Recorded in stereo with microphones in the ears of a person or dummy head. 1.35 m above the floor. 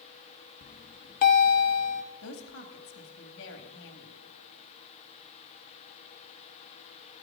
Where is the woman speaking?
65° left (ahead or behind), 2 m.